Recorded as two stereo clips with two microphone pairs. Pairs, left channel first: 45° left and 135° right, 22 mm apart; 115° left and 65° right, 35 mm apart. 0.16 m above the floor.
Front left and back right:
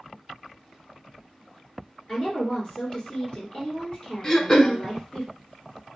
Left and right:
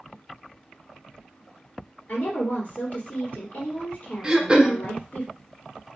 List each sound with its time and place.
2.1 s a woman speaking: 95° left, 2.5 m
4.2 s throat clearing: 5° right, 0.7 m